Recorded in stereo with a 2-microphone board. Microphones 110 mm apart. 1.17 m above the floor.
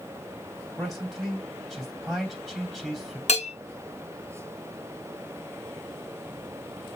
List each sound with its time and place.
0.8 s a man speaking: 5° left (ahead or behind), 3 m
3.3 s a bell: 80° left, 1.3 m